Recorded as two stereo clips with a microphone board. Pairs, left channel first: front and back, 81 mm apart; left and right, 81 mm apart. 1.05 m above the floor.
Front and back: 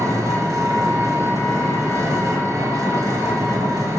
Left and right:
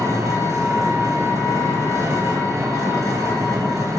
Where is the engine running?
135° right, 0.8 m.